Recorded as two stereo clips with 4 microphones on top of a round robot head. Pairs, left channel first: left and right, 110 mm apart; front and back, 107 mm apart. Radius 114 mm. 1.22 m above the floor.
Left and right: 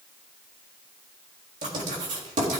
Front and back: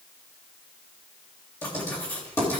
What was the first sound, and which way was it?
Writing, 75° right.